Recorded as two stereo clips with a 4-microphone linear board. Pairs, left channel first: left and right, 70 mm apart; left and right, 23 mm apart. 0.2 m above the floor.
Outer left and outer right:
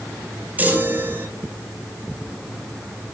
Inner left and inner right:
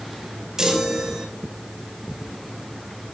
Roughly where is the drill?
No drill in this recording.